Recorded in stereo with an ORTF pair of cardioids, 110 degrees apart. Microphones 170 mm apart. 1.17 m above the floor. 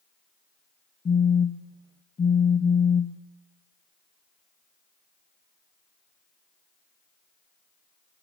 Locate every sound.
1.1 s a phone buzzing: 25° left, 0.6 m